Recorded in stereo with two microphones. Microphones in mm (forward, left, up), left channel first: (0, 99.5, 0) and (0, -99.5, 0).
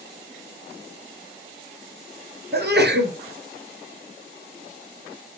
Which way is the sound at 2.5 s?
55° right (ahead or behind).